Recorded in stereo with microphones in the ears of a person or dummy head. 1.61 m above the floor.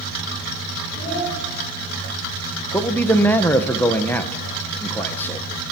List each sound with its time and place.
0.9 s a child speaking: 45° left (ahead or behind), 7 m
2.7 s a man speaking: 10° left (ahead or behind), 1.1 m